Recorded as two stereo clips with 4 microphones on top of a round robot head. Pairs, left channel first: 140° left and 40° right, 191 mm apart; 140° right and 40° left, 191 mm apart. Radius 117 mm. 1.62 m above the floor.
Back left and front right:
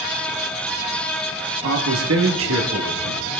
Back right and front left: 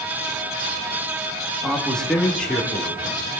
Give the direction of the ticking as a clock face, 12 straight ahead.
No ticking in this recording.